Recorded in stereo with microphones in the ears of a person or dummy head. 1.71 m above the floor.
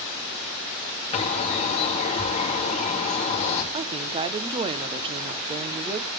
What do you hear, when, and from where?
1.1 s a bird: 40° left (ahead or behind), 2.5 m
3.7 s a woman speaking: 25° right (ahead or behind), 0.9 m